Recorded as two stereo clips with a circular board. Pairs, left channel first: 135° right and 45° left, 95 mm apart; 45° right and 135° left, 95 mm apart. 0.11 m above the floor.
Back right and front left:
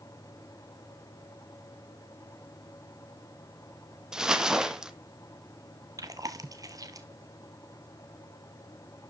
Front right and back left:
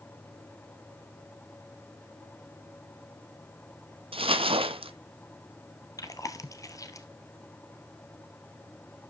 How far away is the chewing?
About 1.1 m.